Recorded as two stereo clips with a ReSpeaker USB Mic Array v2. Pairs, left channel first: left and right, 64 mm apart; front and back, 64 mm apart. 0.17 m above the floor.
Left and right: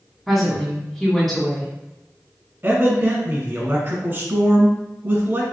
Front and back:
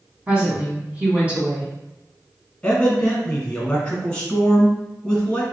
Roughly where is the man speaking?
Ahead right.